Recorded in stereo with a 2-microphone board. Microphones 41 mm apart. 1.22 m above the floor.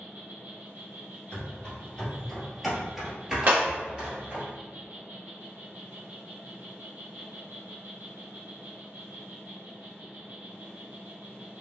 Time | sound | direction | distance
0.0 | an insect | 55° right (ahead or behind) | 1.7 m
1.3 | running footsteps | 30° left (ahead or behind) | 1.5 m
3.5 | breaking glass | 45° right (ahead or behind) | 1.0 m